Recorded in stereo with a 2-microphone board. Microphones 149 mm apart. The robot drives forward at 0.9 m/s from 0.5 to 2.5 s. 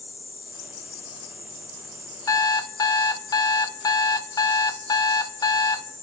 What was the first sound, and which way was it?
An alarm clock, 25° left (ahead or behind).